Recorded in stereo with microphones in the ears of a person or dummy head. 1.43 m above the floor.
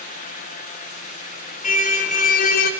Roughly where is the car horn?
Left.